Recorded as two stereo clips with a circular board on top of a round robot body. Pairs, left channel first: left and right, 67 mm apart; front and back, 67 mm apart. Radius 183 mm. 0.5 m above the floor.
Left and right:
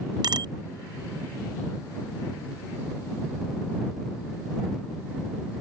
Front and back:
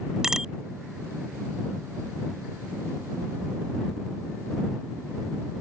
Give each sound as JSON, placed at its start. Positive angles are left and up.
{"t": 0.2, "sound": "a bicycle bell", "azimuth_deg": -100}